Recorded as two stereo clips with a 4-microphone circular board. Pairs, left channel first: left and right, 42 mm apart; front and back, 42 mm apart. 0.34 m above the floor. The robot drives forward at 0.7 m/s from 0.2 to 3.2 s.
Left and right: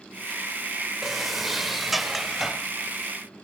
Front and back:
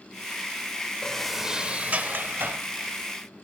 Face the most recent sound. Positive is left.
turn(degrees=180)